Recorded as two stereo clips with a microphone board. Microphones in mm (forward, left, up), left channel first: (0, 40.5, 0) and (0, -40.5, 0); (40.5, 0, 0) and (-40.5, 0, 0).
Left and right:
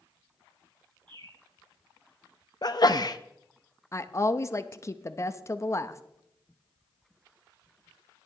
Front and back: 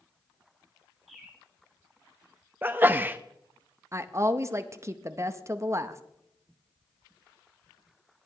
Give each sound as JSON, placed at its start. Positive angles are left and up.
{"t": 1.1, "sound": "a bird", "azimuth_deg": -90, "distance_m": 6.0}
{"t": 2.6, "sound": "a sneeze", "azimuth_deg": 115, "distance_m": 0.5}
{"t": 3.9, "sound": "a woman speaking", "azimuth_deg": 135, "distance_m": 0.7}